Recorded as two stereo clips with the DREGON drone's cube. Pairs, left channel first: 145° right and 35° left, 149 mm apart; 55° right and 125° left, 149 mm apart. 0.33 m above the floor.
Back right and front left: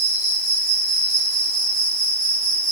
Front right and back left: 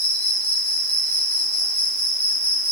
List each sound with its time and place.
0.0 s an insect: 140° right, 8 m